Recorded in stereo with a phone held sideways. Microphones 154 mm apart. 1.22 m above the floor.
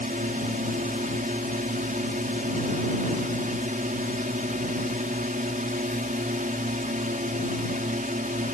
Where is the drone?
60° right (ahead or behind).